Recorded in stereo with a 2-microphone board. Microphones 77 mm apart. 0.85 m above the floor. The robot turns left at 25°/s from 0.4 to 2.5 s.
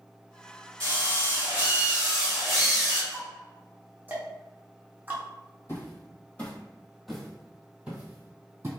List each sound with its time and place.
0.8 s a drill: 135° right, 1.9 m; by 3.0 s straight behind, 1.9 m
3.1 s ticking: 25° right (ahead or behind), 0.8 m
5.7 s footsteps: 30° left (ahead or behind), 1.4 m; by 8.7 s 30° right (ahead or behind), 1.5 m